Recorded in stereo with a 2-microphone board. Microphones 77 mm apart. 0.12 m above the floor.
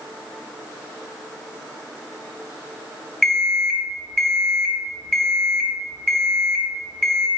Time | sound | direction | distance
3.2 | an alarm clock | 5° left (ahead or behind) | 1.1 m